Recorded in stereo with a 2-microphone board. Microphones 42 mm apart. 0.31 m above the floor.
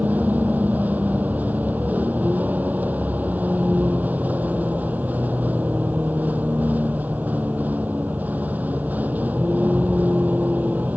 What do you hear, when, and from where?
0.0 s a vehicle: 50° right (ahead or behind)